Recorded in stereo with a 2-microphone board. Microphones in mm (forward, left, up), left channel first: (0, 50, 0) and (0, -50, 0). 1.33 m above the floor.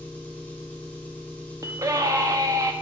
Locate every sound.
0.0 s an engine running: 15° left (ahead or behind), 0.7 m
1.6 s a scream: 35° right (ahead or behind), 0.5 m